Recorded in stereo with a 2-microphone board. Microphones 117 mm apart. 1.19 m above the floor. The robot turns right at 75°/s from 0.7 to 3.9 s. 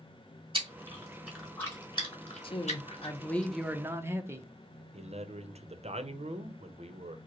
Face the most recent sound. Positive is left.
turn(degrees=-65)  # may be behind; listen again after turning